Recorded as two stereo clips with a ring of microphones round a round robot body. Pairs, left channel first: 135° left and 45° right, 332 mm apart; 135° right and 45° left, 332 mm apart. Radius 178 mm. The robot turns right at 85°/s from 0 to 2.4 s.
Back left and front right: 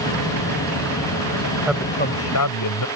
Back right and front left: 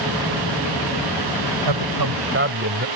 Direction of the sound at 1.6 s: 35° left.